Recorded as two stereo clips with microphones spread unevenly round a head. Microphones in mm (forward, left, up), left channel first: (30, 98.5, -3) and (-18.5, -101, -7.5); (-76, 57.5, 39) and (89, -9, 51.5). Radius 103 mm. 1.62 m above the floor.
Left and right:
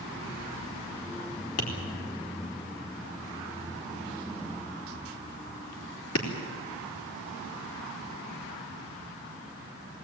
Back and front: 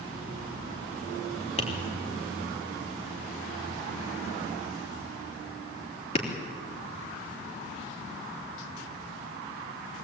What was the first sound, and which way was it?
Tapping, 100° left.